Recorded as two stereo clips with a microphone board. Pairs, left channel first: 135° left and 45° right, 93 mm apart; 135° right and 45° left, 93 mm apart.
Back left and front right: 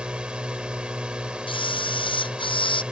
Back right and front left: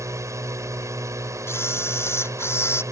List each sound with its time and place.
0.0 s a drone: 25° left
1.5 s a camera shutter: 160° left